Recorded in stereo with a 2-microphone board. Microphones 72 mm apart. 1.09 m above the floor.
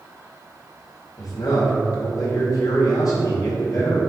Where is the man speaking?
55° left (ahead or behind), 2.0 m.